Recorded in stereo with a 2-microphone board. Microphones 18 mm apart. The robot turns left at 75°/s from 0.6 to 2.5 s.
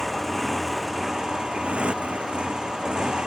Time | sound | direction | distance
0.0 | a motorcycle | 10° left | ?